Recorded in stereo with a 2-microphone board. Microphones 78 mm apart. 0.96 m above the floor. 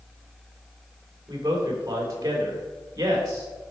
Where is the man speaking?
40° right (ahead or behind), 3.5 m.